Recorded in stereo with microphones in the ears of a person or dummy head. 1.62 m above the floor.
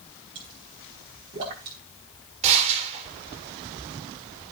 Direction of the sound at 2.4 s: 40° right (ahead or behind).